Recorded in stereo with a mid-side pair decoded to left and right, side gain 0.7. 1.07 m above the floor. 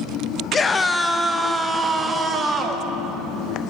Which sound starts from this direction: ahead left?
A scream, at 0.5 s.